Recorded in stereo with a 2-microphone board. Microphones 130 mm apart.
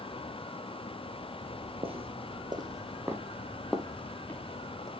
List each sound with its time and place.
1.4 s footsteps: 55° right (ahead or behind), 2.5 m; by 4.9 s 30° left (ahead or behind), 1.8 m